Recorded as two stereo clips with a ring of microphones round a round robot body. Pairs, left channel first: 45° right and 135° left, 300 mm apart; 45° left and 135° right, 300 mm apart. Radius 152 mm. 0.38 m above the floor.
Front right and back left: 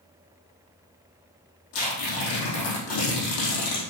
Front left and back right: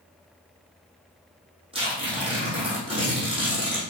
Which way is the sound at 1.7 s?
60° right.